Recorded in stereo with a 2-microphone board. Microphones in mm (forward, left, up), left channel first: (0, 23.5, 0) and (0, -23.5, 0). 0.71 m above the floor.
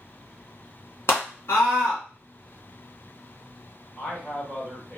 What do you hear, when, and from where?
1.1 s a scream: 55° left (ahead or behind), 1.8 m
4.0 s a man speaking: 25° left (ahead or behind), 1.5 m